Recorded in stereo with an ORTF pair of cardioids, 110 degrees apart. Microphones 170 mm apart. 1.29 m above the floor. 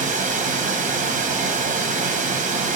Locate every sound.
0.0 s running water: 50° right, 0.8 m